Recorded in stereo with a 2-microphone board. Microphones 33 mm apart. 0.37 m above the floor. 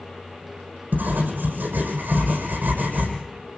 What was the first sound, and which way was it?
Writing, 80° right.